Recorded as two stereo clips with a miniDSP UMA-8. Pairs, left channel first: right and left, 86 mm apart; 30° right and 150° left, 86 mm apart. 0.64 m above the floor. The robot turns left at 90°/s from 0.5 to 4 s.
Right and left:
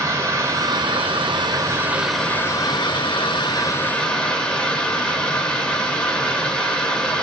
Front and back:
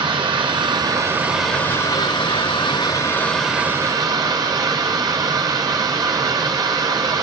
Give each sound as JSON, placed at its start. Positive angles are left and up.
{"t": 0.0, "sound": "running water", "azimuth_deg": 145, "distance_m": 1.5}